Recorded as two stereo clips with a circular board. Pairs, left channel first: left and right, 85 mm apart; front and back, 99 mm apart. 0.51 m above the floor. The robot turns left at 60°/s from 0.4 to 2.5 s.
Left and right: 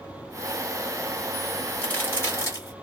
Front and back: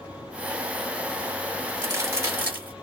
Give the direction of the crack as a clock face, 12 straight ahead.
7 o'clock.